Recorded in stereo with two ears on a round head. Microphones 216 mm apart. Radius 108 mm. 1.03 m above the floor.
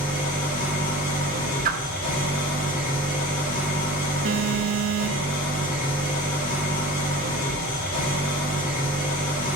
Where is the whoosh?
35° right (ahead or behind), 0.7 m.